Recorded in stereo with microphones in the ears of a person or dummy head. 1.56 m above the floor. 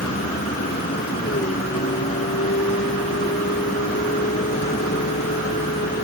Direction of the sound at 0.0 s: 35° left (ahead or behind).